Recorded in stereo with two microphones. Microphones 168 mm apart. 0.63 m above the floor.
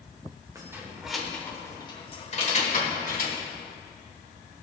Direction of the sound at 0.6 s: 20° right (ahead or behind).